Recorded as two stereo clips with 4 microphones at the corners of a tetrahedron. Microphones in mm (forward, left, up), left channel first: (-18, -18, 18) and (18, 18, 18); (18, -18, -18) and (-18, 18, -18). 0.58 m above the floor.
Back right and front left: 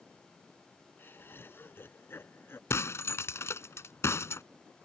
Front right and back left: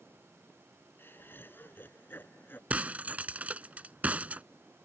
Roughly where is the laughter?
Right.